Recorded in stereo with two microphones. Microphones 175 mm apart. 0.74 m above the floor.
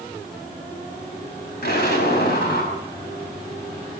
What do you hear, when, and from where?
1.6 s an explosion: 70° left (ahead or behind), 5 m